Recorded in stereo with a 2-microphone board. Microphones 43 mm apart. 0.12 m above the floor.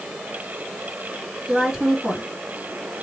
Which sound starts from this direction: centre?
A woman speaking, at 1.5 s.